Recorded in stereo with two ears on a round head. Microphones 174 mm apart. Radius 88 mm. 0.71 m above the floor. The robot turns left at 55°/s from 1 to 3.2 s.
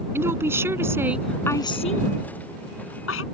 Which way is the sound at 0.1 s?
165° right.